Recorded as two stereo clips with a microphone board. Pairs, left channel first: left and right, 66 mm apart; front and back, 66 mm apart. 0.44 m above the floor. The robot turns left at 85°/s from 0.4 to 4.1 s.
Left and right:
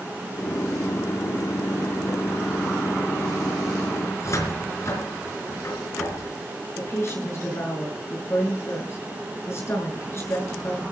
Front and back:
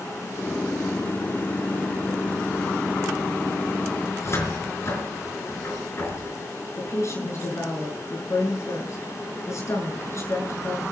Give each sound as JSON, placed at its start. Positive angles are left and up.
{"t": 4.1, "sound": "a cupboard door", "azimuth_deg": 45, "distance_m": 4.5}
{"t": 6.8, "sound": "a woman speaking", "azimuth_deg": 40, "distance_m": 6.5}